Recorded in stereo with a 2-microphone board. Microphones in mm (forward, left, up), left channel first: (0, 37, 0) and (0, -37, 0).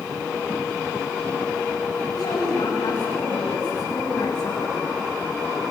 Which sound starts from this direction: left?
A woman speaking, at 2.1 s.